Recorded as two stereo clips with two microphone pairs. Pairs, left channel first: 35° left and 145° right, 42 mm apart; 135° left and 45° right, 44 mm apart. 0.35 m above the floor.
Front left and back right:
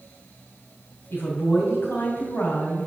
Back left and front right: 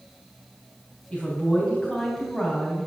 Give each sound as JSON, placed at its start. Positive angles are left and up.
{"t": 1.1, "sound": "a woman speaking", "azimuth_deg": 60, "distance_m": 3.0}